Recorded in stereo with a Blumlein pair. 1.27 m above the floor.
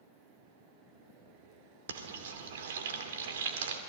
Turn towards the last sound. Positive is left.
turn(degrees=-60)